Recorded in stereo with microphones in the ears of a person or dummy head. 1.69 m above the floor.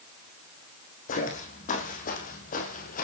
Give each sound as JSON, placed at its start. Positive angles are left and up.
{"t": 1.1, "sound": "footsteps", "side_deg": 40, "distance_m": 4.0}